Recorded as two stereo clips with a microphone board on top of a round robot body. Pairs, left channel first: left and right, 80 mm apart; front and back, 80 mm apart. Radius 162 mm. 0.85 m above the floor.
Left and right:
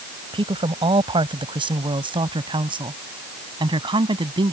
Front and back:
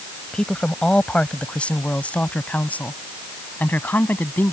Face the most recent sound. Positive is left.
turn(degrees=-70)